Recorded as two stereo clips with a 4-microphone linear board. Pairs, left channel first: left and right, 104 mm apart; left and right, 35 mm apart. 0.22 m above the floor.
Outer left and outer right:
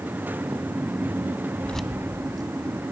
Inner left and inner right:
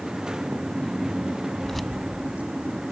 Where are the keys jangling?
15° left (ahead or behind), 0.8 m; by 2.8 s 50° right (ahead or behind), 1.9 m.